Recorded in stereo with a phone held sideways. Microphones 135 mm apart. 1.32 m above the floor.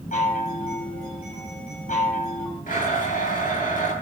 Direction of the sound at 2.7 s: 85° left.